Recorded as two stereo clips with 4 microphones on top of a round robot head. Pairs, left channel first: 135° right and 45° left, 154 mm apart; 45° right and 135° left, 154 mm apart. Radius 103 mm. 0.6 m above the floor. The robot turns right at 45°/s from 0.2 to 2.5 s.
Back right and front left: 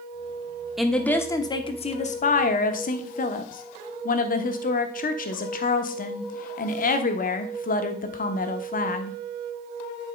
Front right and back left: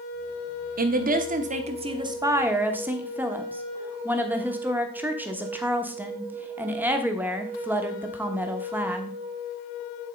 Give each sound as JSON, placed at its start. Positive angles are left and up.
{"t": 0.8, "sound": "a woman speaking", "azimuth_deg": 135, "distance_m": 1.1}